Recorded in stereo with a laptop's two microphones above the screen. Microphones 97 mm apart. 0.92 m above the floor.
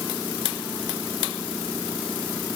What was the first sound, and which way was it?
Only background noise.